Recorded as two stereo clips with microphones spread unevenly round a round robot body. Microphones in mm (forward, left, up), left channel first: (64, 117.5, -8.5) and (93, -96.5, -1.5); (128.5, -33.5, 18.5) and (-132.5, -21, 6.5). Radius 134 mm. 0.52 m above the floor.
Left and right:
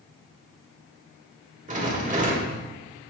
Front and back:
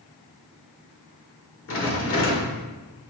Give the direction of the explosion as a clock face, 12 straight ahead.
No explosion in this recording.